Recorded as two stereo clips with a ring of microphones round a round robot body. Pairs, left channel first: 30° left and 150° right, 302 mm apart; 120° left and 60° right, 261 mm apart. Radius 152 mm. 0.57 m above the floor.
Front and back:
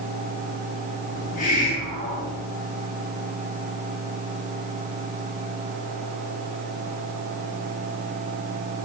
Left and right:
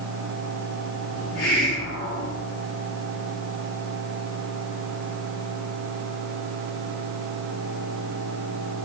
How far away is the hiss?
About 5.5 m.